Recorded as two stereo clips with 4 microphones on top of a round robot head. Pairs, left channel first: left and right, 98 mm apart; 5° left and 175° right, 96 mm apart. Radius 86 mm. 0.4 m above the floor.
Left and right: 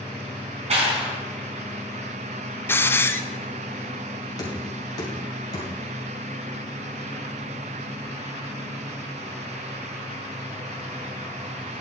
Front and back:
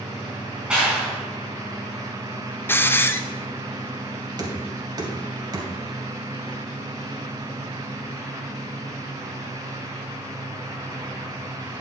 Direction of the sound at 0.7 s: 95° right.